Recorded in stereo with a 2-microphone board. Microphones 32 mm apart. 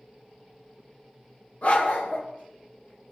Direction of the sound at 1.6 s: 60° left (ahead or behind).